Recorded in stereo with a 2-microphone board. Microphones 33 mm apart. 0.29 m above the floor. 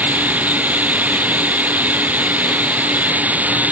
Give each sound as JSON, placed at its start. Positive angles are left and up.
{"t": 0.0, "sound": "running water", "side_deg": -60}